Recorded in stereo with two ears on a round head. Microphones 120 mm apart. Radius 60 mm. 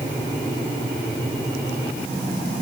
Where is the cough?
No cough in this recording.